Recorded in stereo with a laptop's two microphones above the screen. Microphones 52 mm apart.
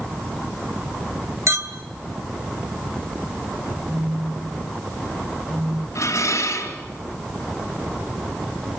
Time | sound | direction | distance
1.5 | a clink | 65° right (ahead or behind) | 3 m
3.9 | a phone buzzing | 25° right (ahead or behind) | 6 m
6.0 | dishes clattering | 80° left | 4.5 m